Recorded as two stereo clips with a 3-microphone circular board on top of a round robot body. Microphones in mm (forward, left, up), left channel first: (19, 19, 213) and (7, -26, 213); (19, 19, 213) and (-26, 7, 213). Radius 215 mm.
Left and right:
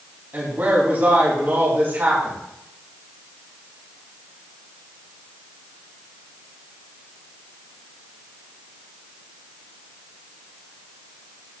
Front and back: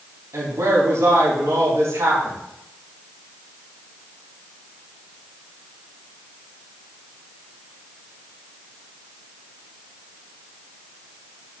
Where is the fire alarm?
I don't hear a fire alarm.